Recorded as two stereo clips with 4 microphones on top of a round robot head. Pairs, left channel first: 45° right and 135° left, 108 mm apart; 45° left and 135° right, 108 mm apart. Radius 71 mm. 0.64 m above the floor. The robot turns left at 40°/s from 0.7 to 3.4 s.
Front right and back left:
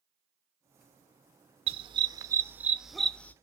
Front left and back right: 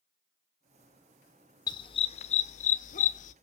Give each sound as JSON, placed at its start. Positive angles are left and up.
{"t": 1.7, "sound": "a dog barking", "azimuth_deg": 100, "distance_m": 0.7}